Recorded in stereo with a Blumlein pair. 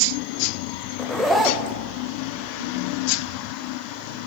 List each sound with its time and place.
1.0 s a zipper: straight ahead, 0.5 m